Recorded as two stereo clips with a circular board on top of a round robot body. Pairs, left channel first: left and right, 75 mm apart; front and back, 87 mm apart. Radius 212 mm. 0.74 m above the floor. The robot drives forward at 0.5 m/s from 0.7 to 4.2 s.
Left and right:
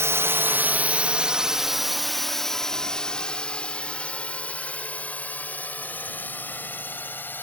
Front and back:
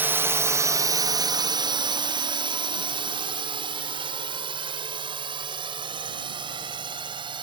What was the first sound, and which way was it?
A drone, 120° right.